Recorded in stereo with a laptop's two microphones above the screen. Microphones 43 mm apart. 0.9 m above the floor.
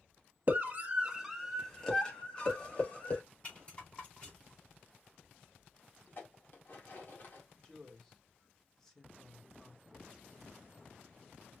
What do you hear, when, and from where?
0.5 s a scream: 45° right (ahead or behind), 1.4 m; by 3.2 s 35° left (ahead or behind), 3 m
3.4 s a rattle: 25° left (ahead or behind), 4 m
6.1 s dishes clattering: 45° left (ahead or behind), 1.6 m
7.5 s a woman speaking: 15° left (ahead or behind), 1.9 m